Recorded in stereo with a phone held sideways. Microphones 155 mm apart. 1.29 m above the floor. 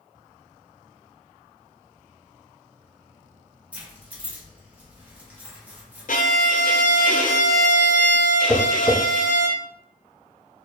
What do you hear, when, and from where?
3.7 s keys jangling: 10° right (ahead or behind), 1.0 m
6.1 s a violin: 65° left (ahead or behind), 0.5 m
8.5 s tapping: 20° right (ahead or behind), 1.6 m